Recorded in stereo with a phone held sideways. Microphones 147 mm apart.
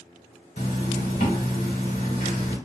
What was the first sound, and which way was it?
A zipper, 80° left.